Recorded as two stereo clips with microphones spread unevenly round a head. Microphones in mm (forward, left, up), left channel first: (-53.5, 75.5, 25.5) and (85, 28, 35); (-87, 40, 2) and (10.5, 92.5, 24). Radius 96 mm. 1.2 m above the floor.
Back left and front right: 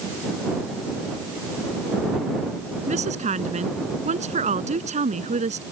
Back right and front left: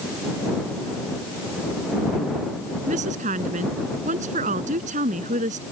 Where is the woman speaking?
20° left.